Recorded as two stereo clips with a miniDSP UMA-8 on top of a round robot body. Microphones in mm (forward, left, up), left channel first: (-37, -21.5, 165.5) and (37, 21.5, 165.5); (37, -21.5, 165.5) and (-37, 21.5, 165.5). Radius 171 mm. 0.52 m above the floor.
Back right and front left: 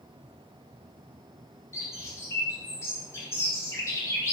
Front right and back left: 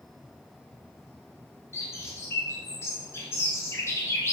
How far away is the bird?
About 0.6 m.